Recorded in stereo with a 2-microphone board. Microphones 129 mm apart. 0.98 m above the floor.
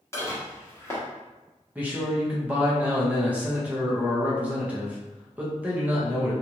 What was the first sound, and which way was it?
Dishes clattering, 20° left (ahead or behind).